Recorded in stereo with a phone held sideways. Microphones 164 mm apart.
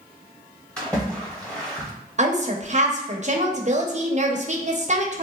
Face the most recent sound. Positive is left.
turn(degrees=-45)  # may be behind; listen again after turning